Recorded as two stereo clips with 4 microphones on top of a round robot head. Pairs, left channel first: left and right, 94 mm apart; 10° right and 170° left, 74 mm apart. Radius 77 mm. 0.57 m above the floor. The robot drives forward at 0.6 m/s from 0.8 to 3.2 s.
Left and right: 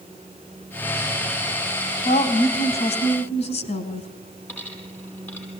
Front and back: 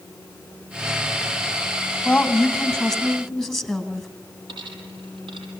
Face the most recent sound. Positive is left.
turn(degrees=160)